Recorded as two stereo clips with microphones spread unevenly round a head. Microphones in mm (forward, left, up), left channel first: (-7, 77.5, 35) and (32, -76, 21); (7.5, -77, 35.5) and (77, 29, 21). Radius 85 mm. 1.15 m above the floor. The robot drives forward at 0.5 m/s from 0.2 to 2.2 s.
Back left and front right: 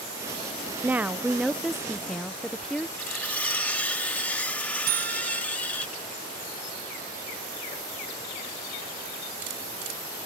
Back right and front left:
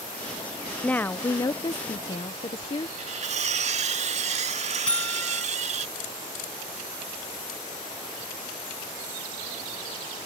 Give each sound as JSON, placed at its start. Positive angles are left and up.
{"t": 0.8, "sound": "a woman speaking", "azimuth_deg": -45}
{"t": 3.0, "sound": "cutlery clinking", "azimuth_deg": 25}
{"t": 4.9, "sound": "a buzzer", "azimuth_deg": -45}